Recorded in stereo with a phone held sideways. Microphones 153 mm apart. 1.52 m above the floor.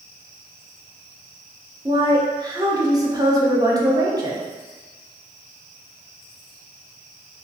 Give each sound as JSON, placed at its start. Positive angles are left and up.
{"t": 1.9, "sound": "a woman speaking", "side_deg": -25, "distance_m": 0.5}